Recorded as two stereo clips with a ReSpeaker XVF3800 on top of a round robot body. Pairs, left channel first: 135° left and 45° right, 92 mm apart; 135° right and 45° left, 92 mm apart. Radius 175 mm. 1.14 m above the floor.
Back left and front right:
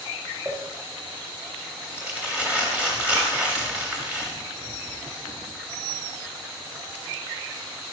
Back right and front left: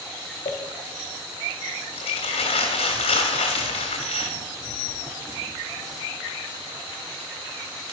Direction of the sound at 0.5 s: 125° right.